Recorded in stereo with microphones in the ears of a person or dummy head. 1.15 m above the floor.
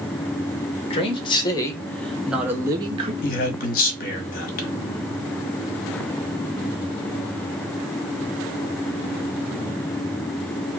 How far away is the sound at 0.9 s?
About 1.2 m.